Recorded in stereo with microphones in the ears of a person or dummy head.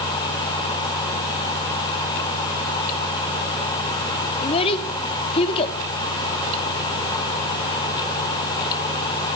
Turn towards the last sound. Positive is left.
turn(degrees=30)  # may be behind; listen again after turning